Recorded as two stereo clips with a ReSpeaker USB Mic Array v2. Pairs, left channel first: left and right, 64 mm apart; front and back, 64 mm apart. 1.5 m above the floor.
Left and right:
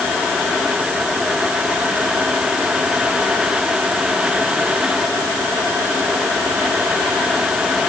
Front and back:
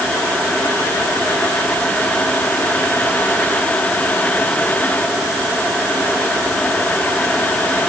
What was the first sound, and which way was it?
Only background noise.